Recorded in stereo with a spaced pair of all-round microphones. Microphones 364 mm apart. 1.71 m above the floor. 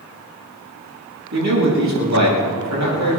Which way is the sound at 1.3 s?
50° right (ahead or behind).